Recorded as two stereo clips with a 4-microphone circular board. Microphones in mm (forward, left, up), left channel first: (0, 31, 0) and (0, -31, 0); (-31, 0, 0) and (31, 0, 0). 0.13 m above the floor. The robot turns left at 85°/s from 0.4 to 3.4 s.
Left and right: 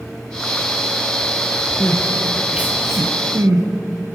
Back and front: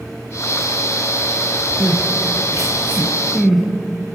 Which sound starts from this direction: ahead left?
Crying, at 1.8 s.